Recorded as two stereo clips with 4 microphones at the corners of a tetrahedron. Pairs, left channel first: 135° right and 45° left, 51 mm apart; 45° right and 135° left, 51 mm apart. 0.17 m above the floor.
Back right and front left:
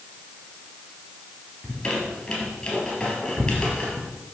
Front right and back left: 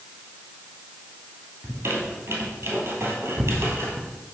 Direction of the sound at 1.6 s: 160° left.